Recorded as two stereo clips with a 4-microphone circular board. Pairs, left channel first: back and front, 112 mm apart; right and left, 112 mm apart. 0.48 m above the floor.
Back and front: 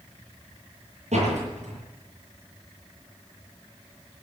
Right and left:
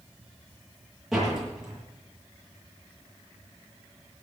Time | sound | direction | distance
1.1 | a door slam | straight ahead | 9 m